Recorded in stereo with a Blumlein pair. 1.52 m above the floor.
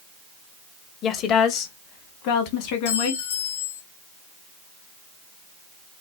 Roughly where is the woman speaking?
Ahead left.